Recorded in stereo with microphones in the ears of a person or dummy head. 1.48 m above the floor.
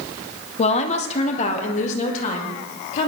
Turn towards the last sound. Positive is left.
turn(degrees=40)  # may be behind; listen again after turning